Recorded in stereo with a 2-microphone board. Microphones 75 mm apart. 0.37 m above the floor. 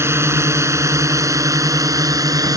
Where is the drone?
35° right (ahead or behind); by 2.6 s 55° right (ahead or behind).